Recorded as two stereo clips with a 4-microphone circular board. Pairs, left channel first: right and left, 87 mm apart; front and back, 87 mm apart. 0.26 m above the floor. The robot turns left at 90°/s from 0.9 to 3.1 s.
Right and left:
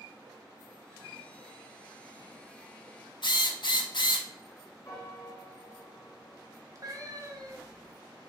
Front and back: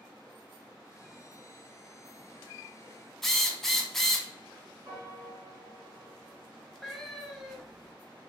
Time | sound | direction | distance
3.2 | a drill | 85° right | 0.7 m
4.8 | a piano | 140° right | 2.5 m
6.8 | a cat meowing | 90° left | 0.8 m